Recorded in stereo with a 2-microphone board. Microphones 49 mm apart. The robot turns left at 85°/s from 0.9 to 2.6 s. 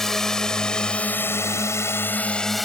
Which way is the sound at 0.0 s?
10° left (ahead or behind).